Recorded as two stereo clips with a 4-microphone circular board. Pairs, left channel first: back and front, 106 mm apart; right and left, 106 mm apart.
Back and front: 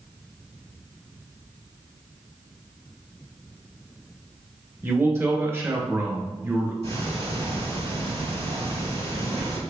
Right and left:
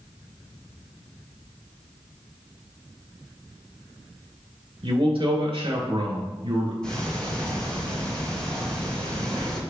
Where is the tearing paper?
I don't hear tearing paper.